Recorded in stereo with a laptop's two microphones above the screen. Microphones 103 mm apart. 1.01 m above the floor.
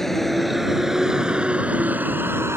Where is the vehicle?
5° left (ahead or behind); by 2.6 s 25° right (ahead or behind).